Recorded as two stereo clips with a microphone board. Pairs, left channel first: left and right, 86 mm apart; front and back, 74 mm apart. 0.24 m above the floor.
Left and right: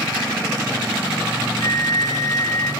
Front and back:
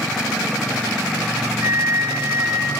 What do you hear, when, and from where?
1.6 s a flute: 130° left, 0.8 m